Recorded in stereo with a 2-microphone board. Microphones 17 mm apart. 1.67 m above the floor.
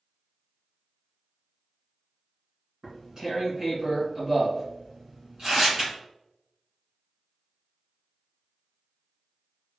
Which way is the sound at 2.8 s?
35° right (ahead or behind).